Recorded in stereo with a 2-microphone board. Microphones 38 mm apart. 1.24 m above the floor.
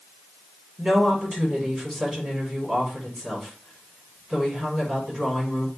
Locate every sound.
0.8 s a woman speaking: 5° right (ahead or behind), 5.5 m